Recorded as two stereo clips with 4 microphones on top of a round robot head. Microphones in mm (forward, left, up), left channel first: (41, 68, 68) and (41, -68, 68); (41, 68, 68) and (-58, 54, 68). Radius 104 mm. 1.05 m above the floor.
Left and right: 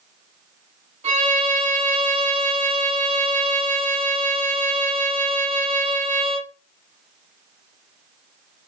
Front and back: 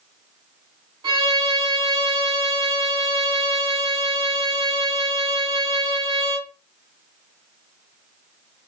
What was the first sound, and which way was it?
A violin, 125° right.